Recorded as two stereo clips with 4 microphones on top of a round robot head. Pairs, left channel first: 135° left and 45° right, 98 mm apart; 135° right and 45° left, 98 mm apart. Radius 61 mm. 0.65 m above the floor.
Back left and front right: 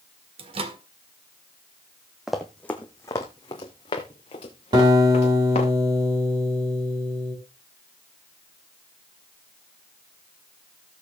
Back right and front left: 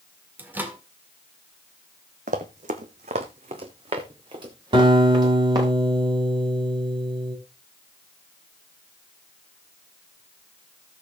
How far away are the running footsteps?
About 1.5 m.